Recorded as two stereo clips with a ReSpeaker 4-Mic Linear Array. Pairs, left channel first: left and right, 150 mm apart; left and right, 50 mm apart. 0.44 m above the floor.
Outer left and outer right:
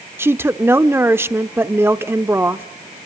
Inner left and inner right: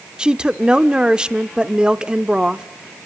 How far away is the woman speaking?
About 0.8 m.